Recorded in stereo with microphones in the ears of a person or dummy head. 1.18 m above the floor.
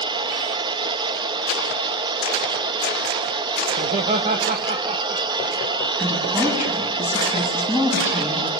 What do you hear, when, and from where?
0.0 s a machine running: 20° right (ahead or behind), 0.9 m
3.7 s laughter: 40° right (ahead or behind), 1.2 m
6.0 s a woman speaking: 5° right (ahead or behind), 7.5 m